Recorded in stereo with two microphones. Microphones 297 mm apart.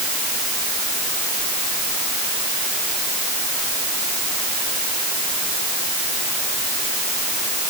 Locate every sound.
Only background noise.